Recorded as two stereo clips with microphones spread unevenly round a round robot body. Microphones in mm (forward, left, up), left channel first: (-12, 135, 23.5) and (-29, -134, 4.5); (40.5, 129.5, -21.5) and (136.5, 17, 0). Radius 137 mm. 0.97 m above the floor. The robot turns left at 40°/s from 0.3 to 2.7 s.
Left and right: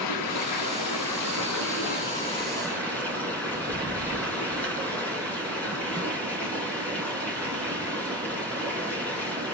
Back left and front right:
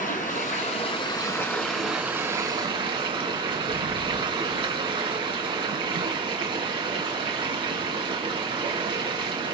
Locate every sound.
0.0 s running water: 100° left, 3 m; by 9.5 s 5° left, 3 m